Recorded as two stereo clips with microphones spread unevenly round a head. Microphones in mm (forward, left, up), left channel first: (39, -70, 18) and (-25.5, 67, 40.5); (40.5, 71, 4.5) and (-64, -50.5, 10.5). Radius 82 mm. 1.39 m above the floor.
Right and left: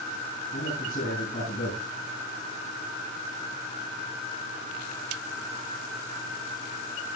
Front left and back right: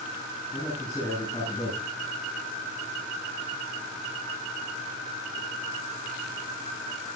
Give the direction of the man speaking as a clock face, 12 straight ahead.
1 o'clock.